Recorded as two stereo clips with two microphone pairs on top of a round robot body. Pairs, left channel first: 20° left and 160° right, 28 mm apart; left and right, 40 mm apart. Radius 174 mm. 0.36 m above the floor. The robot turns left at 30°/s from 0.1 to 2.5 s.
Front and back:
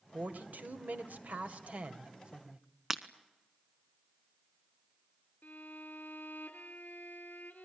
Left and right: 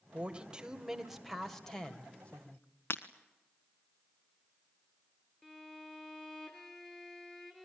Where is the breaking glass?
125° left, 0.9 m.